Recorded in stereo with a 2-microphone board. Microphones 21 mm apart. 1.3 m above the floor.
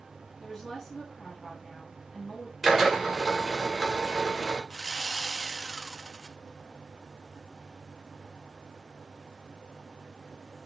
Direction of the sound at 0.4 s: 15° left (ahead or behind).